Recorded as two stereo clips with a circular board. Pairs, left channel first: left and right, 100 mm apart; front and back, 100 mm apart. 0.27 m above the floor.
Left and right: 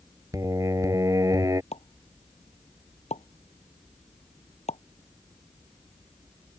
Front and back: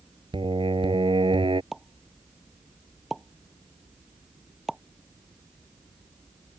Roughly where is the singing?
Behind right.